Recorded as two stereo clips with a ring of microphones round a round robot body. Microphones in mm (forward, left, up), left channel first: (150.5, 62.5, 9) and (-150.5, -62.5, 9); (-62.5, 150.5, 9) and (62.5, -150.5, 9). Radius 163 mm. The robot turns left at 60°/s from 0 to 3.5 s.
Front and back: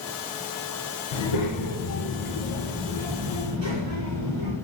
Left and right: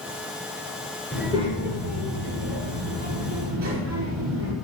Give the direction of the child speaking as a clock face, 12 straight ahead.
11 o'clock.